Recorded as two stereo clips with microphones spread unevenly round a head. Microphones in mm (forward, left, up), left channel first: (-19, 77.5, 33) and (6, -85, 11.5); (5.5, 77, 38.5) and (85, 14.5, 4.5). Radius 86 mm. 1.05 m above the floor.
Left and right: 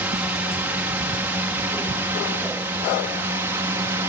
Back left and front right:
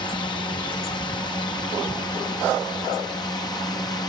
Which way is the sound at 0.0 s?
155° right.